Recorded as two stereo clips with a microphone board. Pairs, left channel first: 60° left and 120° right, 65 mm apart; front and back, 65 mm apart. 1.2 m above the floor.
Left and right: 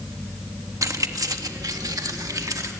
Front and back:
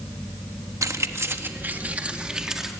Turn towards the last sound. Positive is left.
turn(degrees=-95)